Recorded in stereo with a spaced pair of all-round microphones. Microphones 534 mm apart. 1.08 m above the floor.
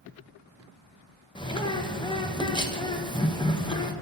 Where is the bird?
10° left (ahead or behind), 0.7 m.